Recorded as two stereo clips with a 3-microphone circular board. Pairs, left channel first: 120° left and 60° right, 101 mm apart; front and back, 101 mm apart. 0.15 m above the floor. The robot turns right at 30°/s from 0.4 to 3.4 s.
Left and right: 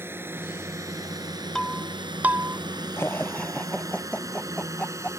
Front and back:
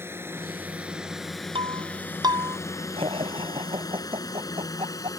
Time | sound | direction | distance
0.0 | a drone | 120° right | ?
1.6 | breaking glass | 155° right | ?
3.0 | laughter | 175° right | ?